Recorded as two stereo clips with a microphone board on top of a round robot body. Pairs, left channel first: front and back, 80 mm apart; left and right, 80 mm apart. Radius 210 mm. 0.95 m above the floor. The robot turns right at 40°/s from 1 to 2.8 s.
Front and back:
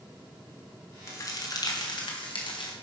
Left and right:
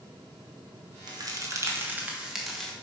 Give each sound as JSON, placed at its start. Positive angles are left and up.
{"t": 1.1, "sound": "a crack", "azimuth_deg": -60, "distance_m": 2.5}